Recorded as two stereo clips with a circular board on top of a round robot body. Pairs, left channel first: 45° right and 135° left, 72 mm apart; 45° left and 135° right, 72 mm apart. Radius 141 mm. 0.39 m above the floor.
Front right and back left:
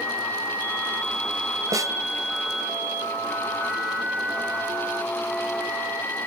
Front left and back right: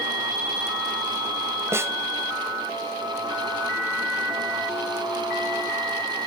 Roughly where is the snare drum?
Behind.